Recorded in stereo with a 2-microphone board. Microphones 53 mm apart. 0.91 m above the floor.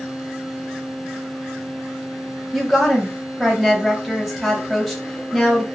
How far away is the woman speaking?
About 0.7 m.